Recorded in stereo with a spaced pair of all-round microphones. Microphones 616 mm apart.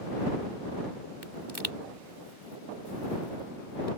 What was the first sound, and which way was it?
A pop, 40° right (ahead or behind).